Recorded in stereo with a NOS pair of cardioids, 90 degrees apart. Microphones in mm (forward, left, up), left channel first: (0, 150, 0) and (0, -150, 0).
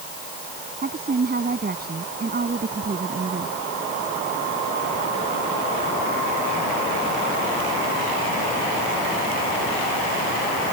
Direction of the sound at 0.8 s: 30° right.